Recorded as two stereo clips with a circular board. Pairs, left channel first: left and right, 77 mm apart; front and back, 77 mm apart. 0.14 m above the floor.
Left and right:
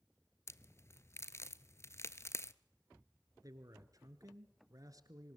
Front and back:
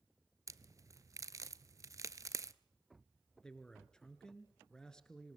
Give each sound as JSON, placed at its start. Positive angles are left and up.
{"t": 0.5, "sound": "a crack", "azimuth_deg": 140, "distance_m": 0.5}
{"t": 3.4, "sound": "a man speaking", "azimuth_deg": -80, "distance_m": 1.6}